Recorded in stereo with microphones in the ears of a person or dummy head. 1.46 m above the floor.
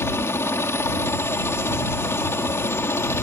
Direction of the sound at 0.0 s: 20° left (ahead or behind).